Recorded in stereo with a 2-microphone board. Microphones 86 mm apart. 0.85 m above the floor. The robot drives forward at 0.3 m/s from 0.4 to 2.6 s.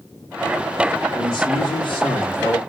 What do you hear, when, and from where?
1.1 s a man speaking: 65° left (ahead or behind), 2 m; by 2.6 s 75° left (ahead or behind), 2 m